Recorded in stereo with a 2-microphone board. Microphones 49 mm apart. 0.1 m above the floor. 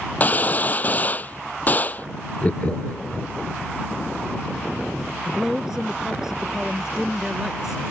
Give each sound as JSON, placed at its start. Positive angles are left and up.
{"t": 0.2, "sound": "a gunshot", "side_deg": 35}
{"t": 2.4, "sound": "laughter", "side_deg": 30}
{"t": 5.2, "sound": "a man speaking", "side_deg": -10}